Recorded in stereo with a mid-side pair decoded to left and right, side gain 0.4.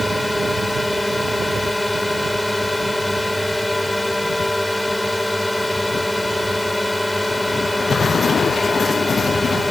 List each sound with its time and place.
0.0 s a drone: 15° left